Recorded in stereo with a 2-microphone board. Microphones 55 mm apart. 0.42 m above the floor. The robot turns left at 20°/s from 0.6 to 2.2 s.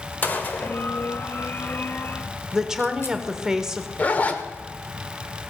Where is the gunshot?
35° left (ahead or behind), 1.2 m; by 3.2 s 50° left (ahead or behind), 1.2 m.